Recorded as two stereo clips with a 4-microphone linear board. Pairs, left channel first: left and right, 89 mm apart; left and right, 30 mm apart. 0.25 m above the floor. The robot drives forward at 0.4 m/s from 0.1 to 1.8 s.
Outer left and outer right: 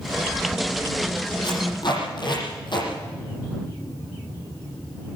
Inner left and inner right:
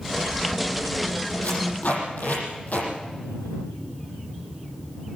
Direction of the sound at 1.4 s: 60° left (ahead or behind).